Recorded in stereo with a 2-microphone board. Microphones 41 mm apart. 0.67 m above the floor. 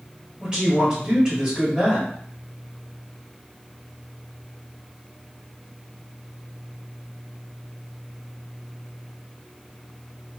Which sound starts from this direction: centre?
A man speaking, at 0.4 s.